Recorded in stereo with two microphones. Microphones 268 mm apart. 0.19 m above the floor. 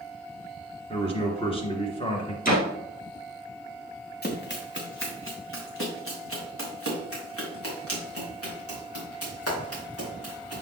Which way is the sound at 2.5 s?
30° left (ahead or behind).